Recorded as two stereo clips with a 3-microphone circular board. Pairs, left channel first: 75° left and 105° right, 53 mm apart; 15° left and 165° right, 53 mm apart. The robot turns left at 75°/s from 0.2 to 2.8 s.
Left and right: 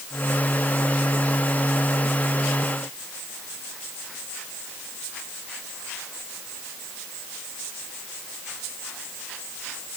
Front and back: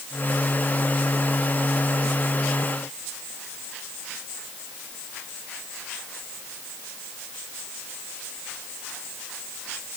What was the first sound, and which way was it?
Only background noise.